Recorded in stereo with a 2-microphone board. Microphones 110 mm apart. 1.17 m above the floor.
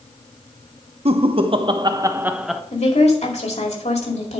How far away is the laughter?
About 1.0 m.